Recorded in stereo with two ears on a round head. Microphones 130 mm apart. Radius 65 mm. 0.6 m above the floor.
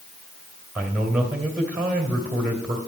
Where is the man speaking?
10° right (ahead or behind), 2.5 m.